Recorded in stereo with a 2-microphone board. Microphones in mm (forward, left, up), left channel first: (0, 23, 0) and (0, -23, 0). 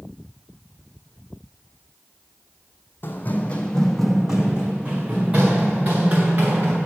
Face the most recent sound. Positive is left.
turn(degrees=-45)  # may be behind; listen again after turning